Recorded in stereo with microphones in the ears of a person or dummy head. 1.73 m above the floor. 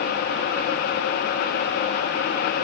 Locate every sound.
Only background noise.